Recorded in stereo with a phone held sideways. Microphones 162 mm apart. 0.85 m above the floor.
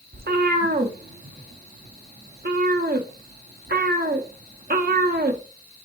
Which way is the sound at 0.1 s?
70° right (ahead or behind).